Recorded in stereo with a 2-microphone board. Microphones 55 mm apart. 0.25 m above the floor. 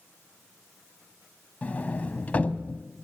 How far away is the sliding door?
About 0.9 m.